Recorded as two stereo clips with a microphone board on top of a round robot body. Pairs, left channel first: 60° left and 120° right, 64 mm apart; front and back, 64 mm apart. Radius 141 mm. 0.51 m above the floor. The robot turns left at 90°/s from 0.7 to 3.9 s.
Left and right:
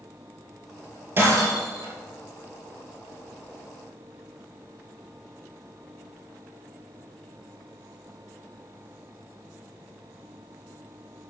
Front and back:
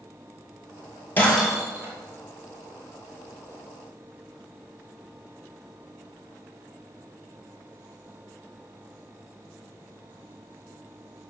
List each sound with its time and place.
1.2 s breaking glass: 60° right, 2.5 m; by 1.9 s 130° right, 2.5 m